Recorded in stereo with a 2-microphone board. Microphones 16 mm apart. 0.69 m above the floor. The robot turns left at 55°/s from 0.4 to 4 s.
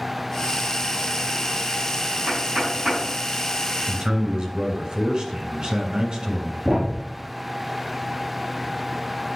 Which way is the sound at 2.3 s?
65° right (ahead or behind).